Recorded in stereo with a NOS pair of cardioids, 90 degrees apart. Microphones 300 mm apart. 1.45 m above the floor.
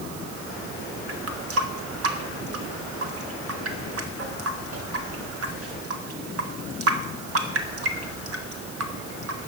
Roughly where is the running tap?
Ahead right.